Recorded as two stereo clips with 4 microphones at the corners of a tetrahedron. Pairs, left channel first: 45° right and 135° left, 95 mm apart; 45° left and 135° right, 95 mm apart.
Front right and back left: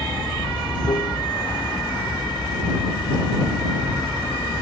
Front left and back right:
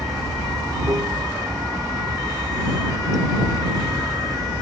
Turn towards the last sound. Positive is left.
turn(degrees=-85)